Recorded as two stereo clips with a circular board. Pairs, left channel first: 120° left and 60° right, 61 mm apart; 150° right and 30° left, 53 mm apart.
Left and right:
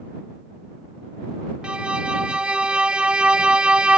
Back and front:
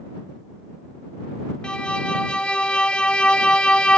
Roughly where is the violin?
Right.